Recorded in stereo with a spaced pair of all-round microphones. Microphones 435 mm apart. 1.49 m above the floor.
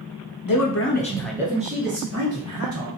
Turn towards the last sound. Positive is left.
turn(degrees=-45)  # may be behind; listen again after turning